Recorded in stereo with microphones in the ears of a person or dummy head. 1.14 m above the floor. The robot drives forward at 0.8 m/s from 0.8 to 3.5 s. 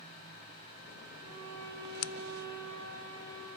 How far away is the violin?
About 6 m.